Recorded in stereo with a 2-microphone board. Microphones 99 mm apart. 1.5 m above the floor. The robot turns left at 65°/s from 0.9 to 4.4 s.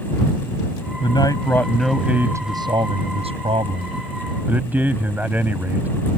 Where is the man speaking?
55° left; by 5.9 s 165° right.